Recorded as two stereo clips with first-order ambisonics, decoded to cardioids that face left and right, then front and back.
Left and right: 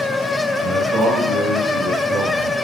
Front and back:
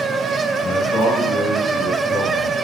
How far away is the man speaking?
About 6 m.